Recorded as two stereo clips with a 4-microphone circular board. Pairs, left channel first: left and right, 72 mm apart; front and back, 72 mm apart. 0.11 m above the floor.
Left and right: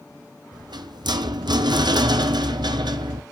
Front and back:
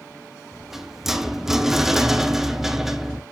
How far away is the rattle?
About 0.7 m.